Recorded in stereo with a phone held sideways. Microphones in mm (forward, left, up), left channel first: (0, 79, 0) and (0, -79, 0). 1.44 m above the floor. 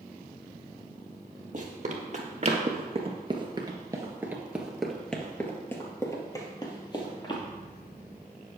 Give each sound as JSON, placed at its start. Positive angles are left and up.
{"t": 1.5, "sound": "running footsteps", "side_deg": -50, "distance_m": 2.5}